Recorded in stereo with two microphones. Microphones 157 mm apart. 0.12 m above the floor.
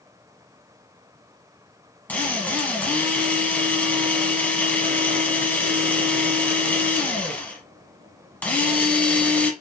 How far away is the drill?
About 1.4 m.